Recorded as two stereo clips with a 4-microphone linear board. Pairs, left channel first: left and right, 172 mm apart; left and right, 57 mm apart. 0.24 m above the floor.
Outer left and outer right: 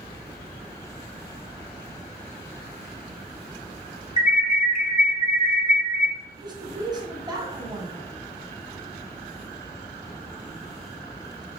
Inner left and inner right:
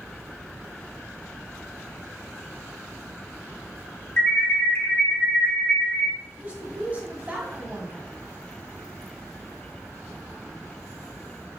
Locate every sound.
4.2 s an alarm: 40° left (ahead or behind), 2 m
6.4 s a woman speaking: 25° right (ahead or behind), 1.9 m